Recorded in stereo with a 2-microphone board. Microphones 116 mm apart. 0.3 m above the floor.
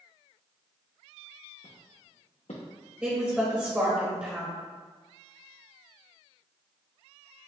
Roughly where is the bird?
I don't hear a bird.